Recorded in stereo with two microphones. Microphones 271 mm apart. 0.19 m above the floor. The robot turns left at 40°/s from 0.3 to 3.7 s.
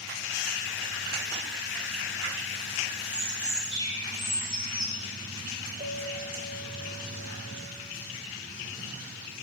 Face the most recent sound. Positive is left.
turn(degrees=-35)  # may be behind; listen again after turning